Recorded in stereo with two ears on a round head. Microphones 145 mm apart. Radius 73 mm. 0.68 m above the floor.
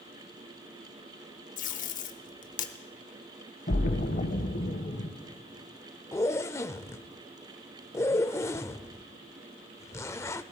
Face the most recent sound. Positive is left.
turn(degrees=15)  # may be behind; listen again after turning